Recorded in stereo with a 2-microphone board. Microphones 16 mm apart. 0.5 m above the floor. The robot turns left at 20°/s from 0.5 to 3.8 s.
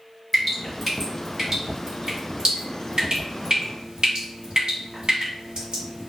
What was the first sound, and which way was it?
Dripping, 5° right (ahead or behind).